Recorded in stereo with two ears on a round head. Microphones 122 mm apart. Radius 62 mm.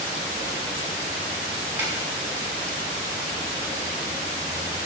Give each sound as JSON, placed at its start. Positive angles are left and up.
{"t": 1.8, "sound": "a snare drum", "side_deg": -15, "distance_m": 6.0}